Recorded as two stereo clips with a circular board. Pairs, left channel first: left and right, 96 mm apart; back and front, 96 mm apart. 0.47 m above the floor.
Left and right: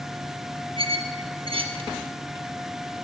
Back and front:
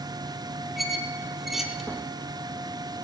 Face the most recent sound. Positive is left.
turn(degrees=-85)